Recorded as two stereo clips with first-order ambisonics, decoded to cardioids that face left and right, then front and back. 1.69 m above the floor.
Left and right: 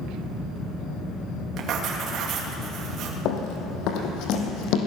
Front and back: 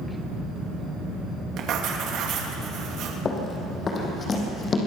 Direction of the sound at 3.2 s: 65° left.